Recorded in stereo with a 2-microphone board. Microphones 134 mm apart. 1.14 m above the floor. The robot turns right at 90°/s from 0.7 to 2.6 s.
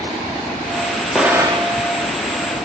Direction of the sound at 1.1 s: Straight behind.